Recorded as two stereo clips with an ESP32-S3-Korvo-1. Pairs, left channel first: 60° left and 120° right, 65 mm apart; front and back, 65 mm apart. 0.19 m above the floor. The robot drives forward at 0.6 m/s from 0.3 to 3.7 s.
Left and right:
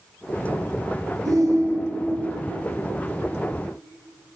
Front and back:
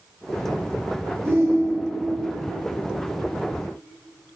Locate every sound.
1.2 s a shout: 135° right, 3 m; by 2.2 s 140° right, 3.5 m